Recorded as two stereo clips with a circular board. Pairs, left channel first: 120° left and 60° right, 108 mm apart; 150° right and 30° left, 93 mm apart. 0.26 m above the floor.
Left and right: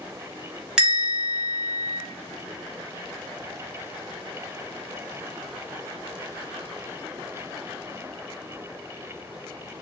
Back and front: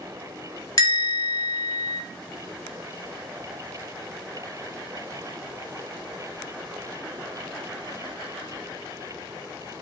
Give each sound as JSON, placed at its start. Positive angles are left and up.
{"t": 0.8, "sound": "a bell", "azimuth_deg": -140, "distance_m": 1.3}